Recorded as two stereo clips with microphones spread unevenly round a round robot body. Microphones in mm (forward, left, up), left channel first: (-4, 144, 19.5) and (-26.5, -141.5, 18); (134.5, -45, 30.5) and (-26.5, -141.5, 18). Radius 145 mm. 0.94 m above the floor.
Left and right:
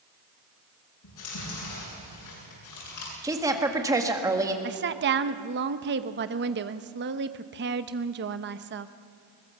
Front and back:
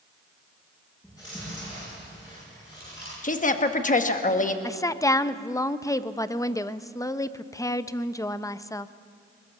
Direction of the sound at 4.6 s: 45° right.